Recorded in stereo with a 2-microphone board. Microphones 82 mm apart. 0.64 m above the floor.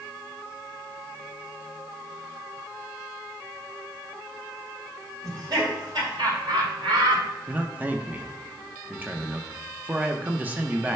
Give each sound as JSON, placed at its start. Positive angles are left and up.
{"t": 5.2, "sound": "laughter", "side_deg": -50, "distance_m": 3.0}
{"t": 7.5, "sound": "a man speaking", "side_deg": -20, "distance_m": 0.8}